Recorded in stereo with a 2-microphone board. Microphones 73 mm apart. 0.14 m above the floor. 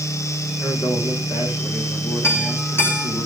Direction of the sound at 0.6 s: 80° left.